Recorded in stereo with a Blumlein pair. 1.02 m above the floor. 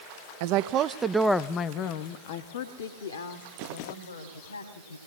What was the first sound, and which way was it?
A woman speaking, 50° right.